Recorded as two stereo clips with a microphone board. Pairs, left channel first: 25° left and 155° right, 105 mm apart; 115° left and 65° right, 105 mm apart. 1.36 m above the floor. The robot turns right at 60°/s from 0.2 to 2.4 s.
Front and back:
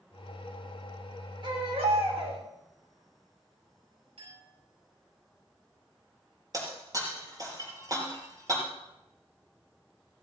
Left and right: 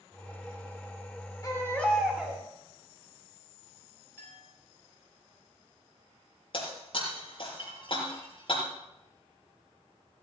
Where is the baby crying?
165° left, 3.5 m; by 2.4 s 135° right, 3.5 m.